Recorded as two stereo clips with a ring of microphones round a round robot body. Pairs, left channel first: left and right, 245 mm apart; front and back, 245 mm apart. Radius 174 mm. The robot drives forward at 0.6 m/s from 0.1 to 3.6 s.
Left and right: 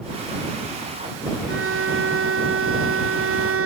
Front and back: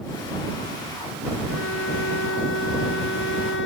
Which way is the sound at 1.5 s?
55° right.